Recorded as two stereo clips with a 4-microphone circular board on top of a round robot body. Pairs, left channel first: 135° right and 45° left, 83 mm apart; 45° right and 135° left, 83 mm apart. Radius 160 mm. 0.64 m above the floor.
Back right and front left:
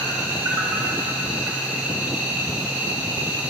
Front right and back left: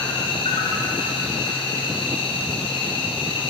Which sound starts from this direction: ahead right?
An insect, at 0.0 s.